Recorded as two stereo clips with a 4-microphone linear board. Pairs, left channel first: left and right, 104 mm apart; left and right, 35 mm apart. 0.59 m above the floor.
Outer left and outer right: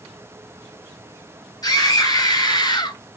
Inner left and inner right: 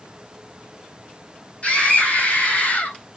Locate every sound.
1.6 s a scream: 40° left (ahead or behind), 4.5 m; by 3.0 s 50° left (ahead or behind), 3 m